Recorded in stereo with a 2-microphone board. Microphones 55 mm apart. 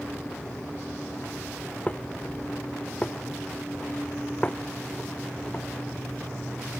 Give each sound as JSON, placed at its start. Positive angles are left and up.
{"t": 1.9, "sound": "dishes clattering", "side_deg": 25}